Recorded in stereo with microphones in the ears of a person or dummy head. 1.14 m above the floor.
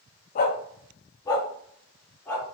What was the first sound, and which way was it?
A dog barking, 35° left (ahead or behind).